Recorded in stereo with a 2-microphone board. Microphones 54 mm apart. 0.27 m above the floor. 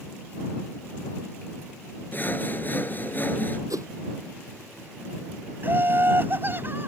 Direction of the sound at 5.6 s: 40° right (ahead or behind).